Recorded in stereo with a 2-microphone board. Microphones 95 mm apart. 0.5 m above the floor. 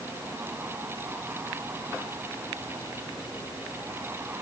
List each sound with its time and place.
Only background noise.